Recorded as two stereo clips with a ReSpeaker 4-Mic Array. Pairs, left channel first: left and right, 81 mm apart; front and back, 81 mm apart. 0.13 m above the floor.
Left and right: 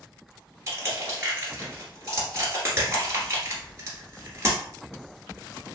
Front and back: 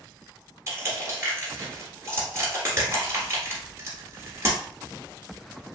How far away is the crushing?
About 1.4 m.